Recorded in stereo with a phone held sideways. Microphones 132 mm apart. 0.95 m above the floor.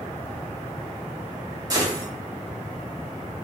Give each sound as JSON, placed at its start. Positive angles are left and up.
{"t": 1.7, "sound": "a gunshot", "side_deg": -25, "distance_m": 0.8}